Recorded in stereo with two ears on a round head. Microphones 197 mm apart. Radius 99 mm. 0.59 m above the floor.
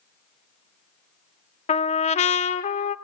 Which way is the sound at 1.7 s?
30° left (ahead or behind).